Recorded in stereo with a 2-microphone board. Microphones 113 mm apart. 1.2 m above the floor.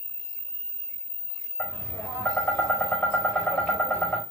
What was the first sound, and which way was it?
Tapping, 15° left (ahead or behind).